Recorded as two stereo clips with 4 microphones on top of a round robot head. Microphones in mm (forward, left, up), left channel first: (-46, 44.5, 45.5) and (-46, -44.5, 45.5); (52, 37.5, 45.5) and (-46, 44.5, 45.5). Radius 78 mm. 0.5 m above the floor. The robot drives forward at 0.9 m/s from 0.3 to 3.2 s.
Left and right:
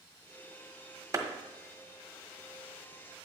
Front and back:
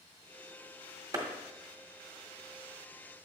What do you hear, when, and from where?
1.1 s a clap: 135° right, 1.7 m